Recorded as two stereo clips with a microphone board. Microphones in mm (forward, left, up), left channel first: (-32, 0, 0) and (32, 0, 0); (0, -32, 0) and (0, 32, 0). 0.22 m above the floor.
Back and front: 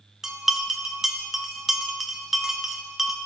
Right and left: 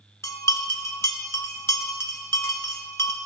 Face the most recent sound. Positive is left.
turn(degrees=-80)